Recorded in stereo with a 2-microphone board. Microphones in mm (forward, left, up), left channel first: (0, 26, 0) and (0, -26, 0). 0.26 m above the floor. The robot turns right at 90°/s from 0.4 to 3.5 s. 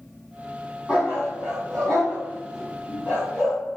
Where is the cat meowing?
No cat meowing in this recording.